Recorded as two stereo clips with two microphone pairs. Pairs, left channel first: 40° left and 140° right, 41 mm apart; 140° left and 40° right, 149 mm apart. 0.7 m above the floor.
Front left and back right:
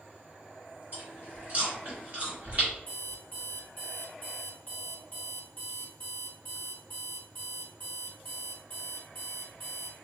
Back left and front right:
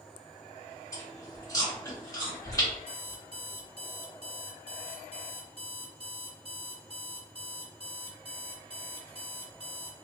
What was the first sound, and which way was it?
Chewing, 165° right.